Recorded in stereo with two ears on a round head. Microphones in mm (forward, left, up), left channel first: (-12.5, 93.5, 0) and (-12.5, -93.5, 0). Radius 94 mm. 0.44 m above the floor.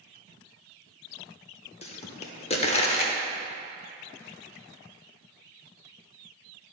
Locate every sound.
1.8 s a pop: 30° left (ahead or behind), 0.7 m